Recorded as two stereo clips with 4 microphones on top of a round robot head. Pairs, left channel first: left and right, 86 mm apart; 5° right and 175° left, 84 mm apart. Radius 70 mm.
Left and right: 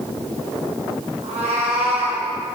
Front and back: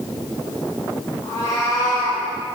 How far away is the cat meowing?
About 1.4 m.